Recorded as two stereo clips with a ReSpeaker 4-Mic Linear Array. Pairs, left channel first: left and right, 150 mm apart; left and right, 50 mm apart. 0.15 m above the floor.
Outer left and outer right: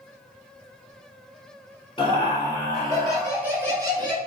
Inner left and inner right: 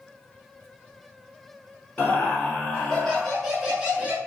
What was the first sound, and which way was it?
Laughter, 35° left (ahead or behind).